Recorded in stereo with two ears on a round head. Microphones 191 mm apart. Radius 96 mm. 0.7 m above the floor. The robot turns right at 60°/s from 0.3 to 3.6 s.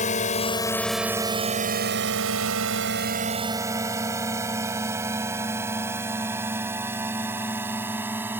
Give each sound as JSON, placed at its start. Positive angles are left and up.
{"t": 0.0, "sound": "a drone", "side_deg": 35}